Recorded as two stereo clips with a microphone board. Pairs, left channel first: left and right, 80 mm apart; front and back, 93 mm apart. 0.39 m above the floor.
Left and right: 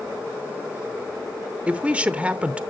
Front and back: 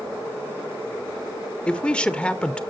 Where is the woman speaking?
55° right, 0.8 m.